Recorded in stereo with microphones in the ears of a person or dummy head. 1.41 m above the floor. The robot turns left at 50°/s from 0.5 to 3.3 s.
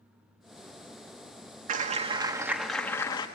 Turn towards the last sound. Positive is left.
turn(degrees=145)